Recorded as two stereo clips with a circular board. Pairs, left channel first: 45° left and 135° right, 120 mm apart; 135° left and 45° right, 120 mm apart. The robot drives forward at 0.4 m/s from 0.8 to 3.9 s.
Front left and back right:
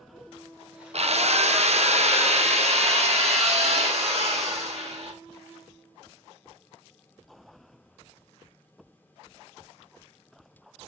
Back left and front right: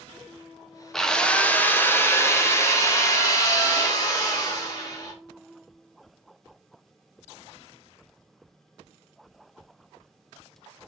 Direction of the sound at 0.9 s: 140° right.